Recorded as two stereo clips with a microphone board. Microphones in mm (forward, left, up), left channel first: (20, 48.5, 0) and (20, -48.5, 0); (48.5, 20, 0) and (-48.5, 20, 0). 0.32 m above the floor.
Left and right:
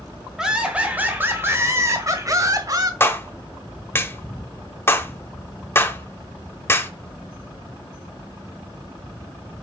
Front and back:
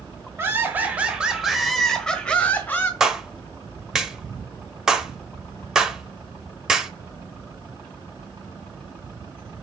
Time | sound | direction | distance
0.4 | laughter | 160° right | 1.3 m
3.0 | a clap | 105° left | 0.9 m